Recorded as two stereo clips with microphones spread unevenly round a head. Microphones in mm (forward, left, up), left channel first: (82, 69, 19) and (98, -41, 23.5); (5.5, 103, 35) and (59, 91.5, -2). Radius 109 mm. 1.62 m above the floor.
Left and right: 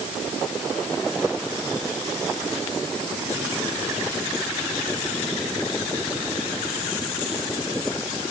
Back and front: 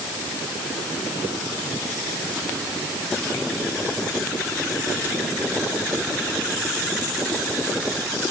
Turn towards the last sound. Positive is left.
No sound to turn to.